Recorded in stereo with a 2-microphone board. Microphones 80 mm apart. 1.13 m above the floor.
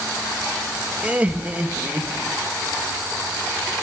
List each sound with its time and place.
1.0 s laughter: 20° right (ahead or behind), 1.4 m